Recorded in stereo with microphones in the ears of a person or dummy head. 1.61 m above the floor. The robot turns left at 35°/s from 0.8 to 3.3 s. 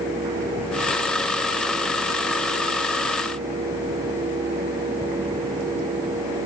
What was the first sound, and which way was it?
Only background noise.